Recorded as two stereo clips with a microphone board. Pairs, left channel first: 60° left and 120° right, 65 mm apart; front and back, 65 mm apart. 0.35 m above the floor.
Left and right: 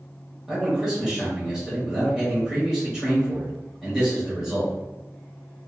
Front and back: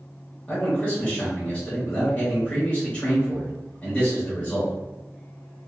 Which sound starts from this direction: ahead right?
A man speaking, at 0.5 s.